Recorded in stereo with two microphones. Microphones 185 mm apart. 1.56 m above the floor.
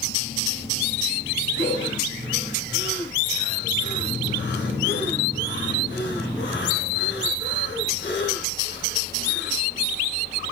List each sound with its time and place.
1.6 s breathing: 80° left, 6 m